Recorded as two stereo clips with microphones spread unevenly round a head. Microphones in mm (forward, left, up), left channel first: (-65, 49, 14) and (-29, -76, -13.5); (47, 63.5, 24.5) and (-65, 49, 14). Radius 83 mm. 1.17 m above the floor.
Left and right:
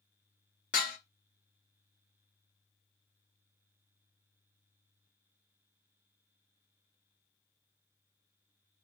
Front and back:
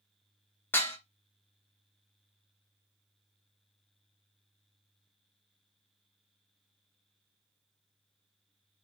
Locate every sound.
0.7 s dishes clattering: 80° left, 1.0 m